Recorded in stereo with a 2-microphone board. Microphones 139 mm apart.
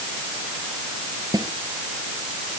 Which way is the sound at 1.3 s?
30° right (ahead or behind).